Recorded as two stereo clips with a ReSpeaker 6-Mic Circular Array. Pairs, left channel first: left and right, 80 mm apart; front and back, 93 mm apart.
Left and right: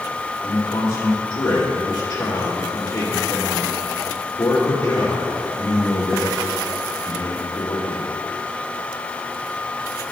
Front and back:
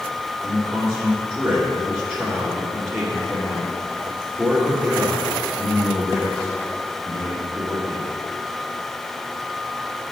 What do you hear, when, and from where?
0.4 s a man speaking: 120° left, 2 m